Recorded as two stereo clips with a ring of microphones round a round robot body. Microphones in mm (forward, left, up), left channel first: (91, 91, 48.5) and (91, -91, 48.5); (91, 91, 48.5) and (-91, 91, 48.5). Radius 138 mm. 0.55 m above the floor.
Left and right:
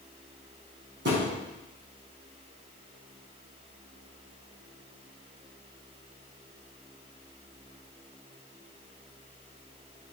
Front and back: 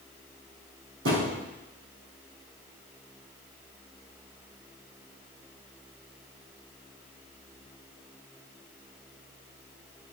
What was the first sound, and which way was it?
A thud, 140° right.